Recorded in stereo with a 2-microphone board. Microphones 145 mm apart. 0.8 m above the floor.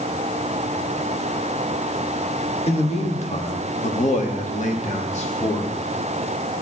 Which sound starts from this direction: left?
A man speaking, at 2.7 s.